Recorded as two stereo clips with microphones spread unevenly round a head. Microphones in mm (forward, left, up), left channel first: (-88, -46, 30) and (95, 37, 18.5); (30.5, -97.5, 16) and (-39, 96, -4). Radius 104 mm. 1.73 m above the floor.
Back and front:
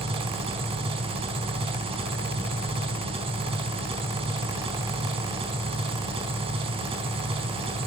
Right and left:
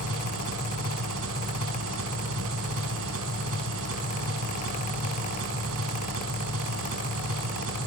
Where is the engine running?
90° left, 4 m.